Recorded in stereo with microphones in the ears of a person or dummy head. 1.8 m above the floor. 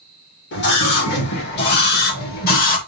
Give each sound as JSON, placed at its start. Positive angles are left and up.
{"t": 0.5, "sound": "a scream", "side_deg": 60, "distance_m": 3.5}